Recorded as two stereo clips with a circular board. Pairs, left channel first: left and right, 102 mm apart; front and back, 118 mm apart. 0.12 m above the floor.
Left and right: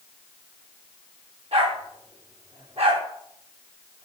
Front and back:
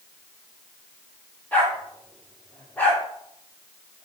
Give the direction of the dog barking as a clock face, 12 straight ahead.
3 o'clock.